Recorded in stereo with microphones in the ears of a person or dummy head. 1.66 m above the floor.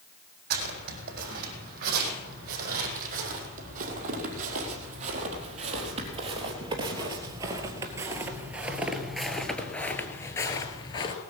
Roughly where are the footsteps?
Right.